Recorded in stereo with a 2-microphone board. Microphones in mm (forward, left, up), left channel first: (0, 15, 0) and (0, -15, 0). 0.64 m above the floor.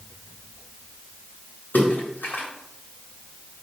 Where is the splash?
75° left (ahead or behind), 1.8 m.